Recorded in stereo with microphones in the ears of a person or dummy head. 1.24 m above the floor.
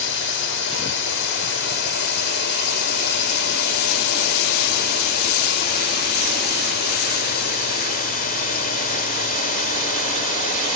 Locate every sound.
0.0 s a drone: 60° left (ahead or behind); by 10.8 s 40° left (ahead or behind)